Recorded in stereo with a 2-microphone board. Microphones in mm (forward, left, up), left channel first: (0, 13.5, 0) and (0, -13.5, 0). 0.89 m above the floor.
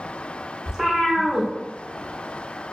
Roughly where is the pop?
I don't hear a pop.